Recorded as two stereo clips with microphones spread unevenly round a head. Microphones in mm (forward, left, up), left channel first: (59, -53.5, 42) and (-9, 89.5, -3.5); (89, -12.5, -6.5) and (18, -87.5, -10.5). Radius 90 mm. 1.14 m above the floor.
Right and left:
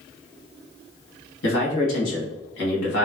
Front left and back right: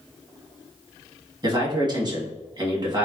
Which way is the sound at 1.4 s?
85° right.